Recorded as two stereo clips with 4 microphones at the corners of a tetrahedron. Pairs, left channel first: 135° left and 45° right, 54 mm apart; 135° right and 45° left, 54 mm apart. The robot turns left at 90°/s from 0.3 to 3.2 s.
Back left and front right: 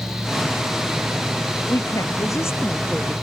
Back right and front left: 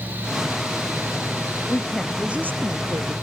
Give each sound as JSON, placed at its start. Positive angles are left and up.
{"t": 1.7, "sound": "a woman speaking", "azimuth_deg": 170}